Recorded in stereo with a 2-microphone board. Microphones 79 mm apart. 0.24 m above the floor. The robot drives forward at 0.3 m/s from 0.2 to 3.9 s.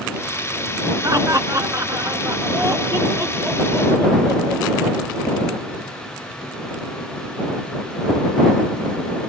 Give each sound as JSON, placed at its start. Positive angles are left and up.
{"t": 1.0, "sound": "laughter", "side_deg": -45, "distance_m": 2.5}